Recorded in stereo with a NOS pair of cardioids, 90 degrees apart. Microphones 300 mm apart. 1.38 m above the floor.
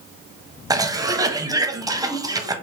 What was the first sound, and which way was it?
A cough, 10° right.